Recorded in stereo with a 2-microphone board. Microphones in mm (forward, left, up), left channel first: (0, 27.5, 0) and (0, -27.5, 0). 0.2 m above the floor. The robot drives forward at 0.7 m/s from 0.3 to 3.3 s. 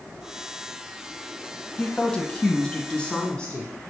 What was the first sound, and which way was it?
A woman speaking, 20° left (ahead or behind).